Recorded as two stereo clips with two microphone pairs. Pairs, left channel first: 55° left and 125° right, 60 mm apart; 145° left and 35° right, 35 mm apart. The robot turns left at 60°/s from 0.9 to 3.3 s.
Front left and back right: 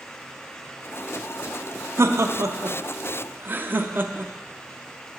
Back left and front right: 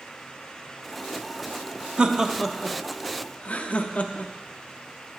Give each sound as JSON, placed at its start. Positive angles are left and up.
{"t": 2.0, "sound": "laughter", "azimuth_deg": -95, "distance_m": 0.5}